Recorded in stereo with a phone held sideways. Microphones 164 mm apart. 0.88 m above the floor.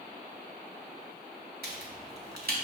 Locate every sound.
1.6 s a crack: 70° right (ahead or behind), 1.8 m